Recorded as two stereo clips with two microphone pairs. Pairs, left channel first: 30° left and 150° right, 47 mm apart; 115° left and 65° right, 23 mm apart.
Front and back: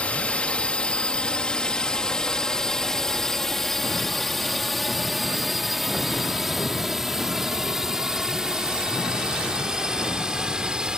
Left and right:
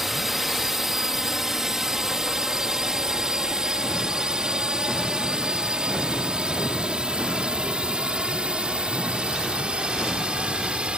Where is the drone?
Straight ahead; by 11.0 s 80° right.